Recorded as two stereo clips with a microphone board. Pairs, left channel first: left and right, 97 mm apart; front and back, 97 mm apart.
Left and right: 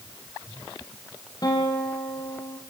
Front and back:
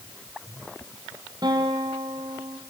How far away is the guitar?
About 4.5 m.